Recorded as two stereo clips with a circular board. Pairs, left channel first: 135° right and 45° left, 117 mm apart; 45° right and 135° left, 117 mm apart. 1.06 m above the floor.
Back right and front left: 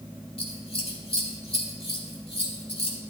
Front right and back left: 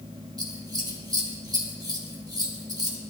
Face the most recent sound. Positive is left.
turn(degrees=-170)